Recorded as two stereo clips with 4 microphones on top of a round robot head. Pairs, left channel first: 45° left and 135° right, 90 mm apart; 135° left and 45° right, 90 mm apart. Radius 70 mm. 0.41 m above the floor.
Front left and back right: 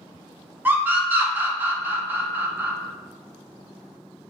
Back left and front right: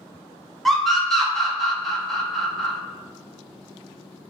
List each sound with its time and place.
0.7 s a scream: 140° right, 0.8 m